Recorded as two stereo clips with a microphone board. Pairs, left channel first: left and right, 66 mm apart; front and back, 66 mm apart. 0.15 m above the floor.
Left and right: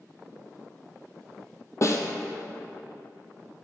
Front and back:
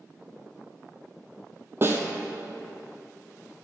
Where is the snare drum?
130° left, 0.8 m.